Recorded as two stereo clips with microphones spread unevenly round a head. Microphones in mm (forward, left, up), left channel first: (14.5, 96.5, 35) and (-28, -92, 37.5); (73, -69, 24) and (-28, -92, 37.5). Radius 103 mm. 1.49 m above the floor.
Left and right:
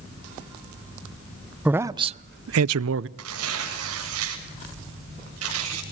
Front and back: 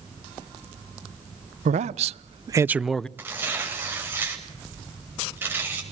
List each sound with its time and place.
1.6 s a man speaking: 175° left, 0.9 m; by 3.1 s 70° right, 0.8 m
3.2 s tearing paper: 100° right, 7.5 m